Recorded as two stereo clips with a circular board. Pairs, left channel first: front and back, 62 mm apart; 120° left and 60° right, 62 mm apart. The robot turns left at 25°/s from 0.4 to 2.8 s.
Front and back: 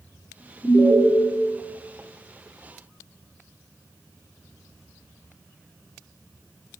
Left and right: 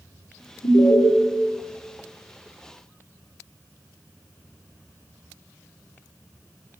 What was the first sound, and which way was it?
An alarm, 125° left.